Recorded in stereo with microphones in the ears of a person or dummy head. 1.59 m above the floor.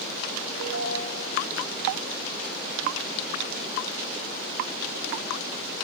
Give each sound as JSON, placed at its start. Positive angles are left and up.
{"t": 0.6, "sound": "a ringtone", "side_deg": -75, "distance_m": 8.0}